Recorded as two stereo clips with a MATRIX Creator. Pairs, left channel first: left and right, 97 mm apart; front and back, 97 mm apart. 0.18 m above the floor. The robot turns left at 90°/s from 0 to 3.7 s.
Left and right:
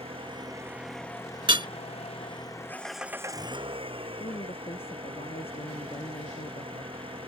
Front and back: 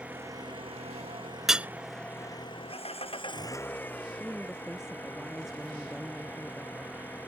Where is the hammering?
90° right; by 1.7 s 110° right.